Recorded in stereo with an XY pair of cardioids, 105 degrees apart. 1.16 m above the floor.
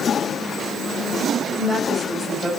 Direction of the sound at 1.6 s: 10° right.